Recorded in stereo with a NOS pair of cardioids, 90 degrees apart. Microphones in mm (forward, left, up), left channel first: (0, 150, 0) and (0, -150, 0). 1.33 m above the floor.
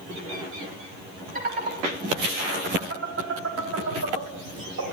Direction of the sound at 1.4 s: 30° right.